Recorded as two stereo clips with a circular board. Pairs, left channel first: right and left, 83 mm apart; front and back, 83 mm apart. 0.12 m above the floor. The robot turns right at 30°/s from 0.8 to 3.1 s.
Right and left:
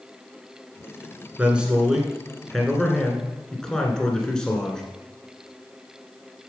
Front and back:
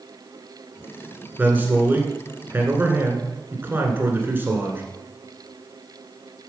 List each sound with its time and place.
1.4 s a man speaking: 145° left, 1.8 m; by 4.8 s 160° right, 1.8 m